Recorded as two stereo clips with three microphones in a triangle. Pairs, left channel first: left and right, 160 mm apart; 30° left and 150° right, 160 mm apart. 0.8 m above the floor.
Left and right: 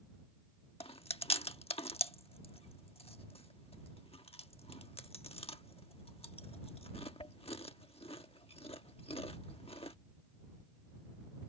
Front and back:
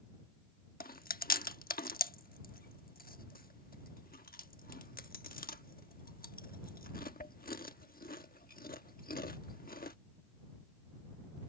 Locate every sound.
0.8 s chewing: 40° left